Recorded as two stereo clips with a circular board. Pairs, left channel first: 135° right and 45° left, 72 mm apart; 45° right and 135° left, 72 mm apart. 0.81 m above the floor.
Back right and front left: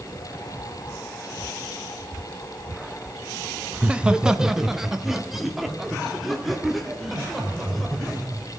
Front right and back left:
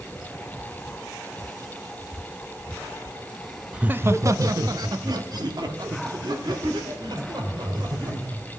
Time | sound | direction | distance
3.7 | laughter | 85° left | 0.5 m